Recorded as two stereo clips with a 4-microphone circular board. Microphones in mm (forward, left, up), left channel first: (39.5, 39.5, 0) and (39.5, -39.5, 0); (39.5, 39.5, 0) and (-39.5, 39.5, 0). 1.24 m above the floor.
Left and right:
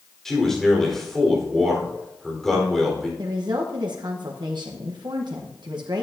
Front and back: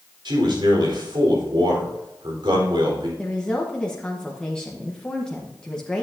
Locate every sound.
0.2 s a man speaking: 175° left, 4 m
3.2 s a woman speaking: 80° right, 1.1 m